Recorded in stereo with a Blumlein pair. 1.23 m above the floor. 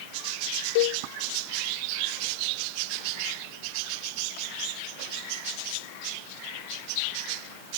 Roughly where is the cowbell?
Ahead left.